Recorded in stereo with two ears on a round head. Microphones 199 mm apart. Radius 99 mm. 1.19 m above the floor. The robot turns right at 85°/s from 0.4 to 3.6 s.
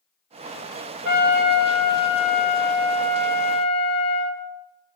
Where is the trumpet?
60° right, 1.9 m; by 4.4 s 155° left, 1.9 m.